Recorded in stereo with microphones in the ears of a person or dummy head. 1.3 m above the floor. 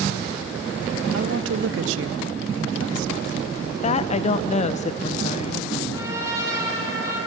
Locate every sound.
1.1 s a woman speaking: 70° right (ahead or behind), 0.6 m
3.8 s a woman speaking: 30° left (ahead or behind), 0.8 m
5.9 s a trumpet: 15° right (ahead or behind), 8 m